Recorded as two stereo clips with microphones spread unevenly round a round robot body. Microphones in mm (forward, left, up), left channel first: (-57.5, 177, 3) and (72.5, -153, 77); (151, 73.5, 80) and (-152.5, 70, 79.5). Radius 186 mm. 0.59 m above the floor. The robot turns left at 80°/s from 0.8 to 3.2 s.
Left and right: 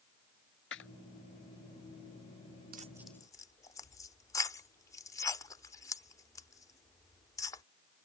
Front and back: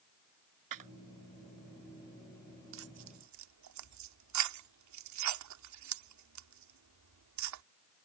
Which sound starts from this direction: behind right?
Tearing paper, at 2.7 s.